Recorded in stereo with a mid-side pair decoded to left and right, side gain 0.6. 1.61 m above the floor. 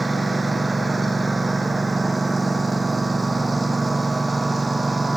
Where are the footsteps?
I don't hear footsteps.